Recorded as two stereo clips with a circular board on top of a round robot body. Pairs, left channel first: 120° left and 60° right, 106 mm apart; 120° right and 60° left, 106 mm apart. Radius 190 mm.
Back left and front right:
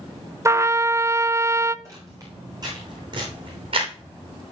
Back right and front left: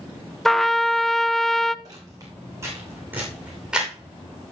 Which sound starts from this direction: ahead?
Footsteps, at 1.9 s.